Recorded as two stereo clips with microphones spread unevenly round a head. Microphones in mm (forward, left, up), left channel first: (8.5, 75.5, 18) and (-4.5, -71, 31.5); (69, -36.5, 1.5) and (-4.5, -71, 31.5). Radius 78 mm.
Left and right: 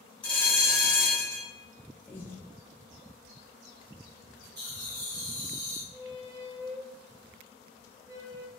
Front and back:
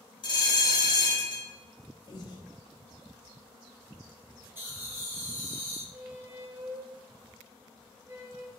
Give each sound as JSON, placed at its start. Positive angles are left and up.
{"t": 0.2, "sound": "a bell", "azimuth_deg": 5, "distance_m": 1.3}
{"t": 2.1, "sound": "breathing", "azimuth_deg": 10, "distance_m": 0.7}
{"t": 4.5, "sound": "laughter", "azimuth_deg": -85, "distance_m": 1.4}
{"t": 5.9, "sound": "a squeak", "azimuth_deg": -115, "distance_m": 2.0}